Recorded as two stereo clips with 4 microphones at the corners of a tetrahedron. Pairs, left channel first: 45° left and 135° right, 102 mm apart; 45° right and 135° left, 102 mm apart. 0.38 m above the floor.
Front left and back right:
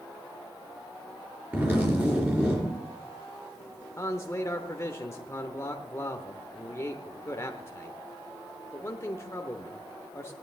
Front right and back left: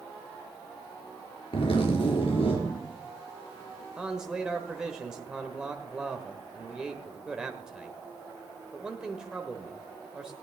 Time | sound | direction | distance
1.5 | a zipper | 65° right | 4 m
4.0 | a man speaking | 60° left | 1.0 m